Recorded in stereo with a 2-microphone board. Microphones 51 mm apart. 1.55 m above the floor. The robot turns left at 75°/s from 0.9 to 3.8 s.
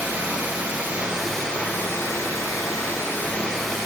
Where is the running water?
155° right, 9 m; by 3.9 s 10° right, 9 m.